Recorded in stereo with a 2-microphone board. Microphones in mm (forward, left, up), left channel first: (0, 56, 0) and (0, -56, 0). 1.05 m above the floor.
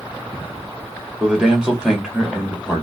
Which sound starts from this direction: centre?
A man speaking, at 1.2 s.